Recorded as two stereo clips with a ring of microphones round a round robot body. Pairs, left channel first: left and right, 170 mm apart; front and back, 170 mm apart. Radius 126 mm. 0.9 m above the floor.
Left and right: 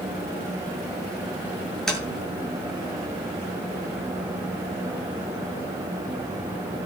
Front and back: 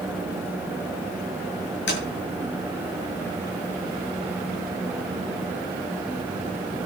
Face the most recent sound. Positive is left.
turn(degrees=5)